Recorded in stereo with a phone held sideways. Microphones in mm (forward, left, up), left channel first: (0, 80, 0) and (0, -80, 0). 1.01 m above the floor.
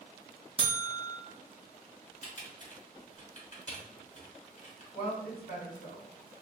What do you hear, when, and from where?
0.6 s a buzzer: 35° right (ahead or behind), 0.5 m
2.2 s typing on a keyboard: 50° left (ahead or behind), 1.4 m
4.9 s a woman speaking: 75° left (ahead or behind), 1.6 m